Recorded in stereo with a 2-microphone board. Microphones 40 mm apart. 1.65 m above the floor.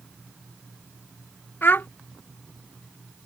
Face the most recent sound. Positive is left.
turn(degrees=60)  # may be behind; listen again after turning